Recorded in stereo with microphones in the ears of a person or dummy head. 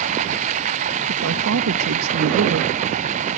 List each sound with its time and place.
0.0 s running water: 45° right (ahead or behind)
1.1 s a man speaking: 65° right (ahead or behind)